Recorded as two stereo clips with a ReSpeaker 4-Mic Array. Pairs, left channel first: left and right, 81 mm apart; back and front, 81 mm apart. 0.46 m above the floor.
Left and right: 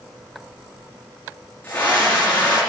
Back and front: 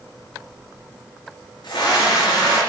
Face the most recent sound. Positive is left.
turn(degrees=150)